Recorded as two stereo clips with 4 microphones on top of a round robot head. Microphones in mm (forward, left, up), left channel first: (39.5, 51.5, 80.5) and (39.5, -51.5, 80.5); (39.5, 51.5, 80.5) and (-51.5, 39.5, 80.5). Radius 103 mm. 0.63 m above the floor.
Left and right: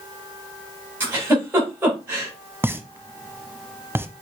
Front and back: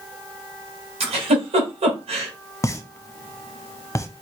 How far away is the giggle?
About 2 m.